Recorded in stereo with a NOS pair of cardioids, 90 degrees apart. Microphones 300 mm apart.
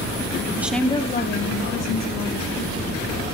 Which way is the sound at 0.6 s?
10° right.